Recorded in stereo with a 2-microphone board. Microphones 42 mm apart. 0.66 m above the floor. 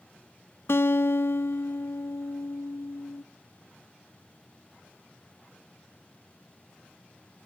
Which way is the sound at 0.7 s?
85° left.